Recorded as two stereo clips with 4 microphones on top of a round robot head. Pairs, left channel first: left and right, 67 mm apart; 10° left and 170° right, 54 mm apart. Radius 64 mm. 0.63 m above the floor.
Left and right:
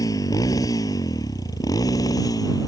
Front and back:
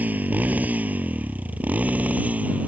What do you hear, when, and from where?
0.0 s a motorcycle: 130° left